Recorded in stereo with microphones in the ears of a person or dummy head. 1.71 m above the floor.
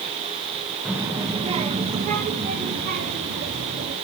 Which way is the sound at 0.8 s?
5° right (ahead or behind).